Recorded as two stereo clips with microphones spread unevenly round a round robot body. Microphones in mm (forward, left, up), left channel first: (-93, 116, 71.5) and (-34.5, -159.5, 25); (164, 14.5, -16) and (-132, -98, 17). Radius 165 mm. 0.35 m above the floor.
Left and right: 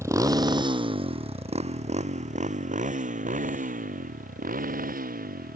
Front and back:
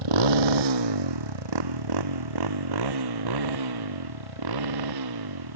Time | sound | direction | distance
0.0 | a motorcycle | 160° right | ?